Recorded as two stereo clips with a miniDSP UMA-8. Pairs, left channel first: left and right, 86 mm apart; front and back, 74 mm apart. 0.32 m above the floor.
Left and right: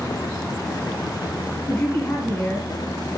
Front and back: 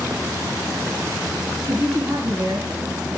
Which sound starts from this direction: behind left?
A man speaking, at 1.7 s.